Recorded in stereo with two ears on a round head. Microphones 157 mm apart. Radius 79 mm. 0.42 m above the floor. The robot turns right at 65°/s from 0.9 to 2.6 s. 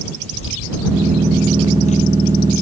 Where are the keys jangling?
70° left (ahead or behind); by 2.6 s 5° right (ahead or behind).